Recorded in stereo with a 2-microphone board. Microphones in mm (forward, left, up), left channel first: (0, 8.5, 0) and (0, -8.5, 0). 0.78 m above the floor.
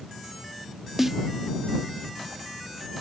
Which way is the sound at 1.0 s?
20° right (ahead or behind).